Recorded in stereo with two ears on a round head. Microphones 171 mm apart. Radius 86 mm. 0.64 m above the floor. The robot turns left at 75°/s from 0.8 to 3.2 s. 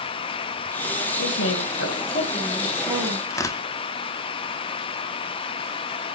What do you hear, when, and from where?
1.2 s a woman speaking: 115° left, 4 m; by 3.2 s 40° right, 4 m
3.3 s tearing paper: 15° left (ahead or behind), 1.6 m